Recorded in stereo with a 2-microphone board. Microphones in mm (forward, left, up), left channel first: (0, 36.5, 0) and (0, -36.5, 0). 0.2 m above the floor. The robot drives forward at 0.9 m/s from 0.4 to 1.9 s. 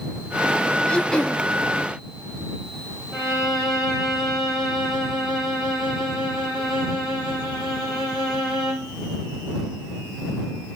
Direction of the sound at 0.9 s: 10° left (ahead or behind).